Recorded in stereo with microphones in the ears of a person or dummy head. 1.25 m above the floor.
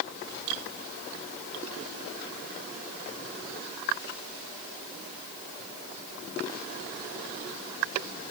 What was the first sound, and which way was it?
Only background noise.